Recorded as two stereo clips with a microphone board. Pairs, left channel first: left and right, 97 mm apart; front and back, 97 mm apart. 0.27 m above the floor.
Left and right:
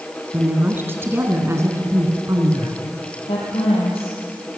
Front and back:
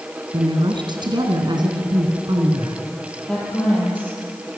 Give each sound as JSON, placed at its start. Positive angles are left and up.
{"t": 0.3, "sound": "a woman speaking", "azimuth_deg": -160, "distance_m": 3.0}
{"t": 3.3, "sound": "a woman speaking", "azimuth_deg": 80, "distance_m": 9.0}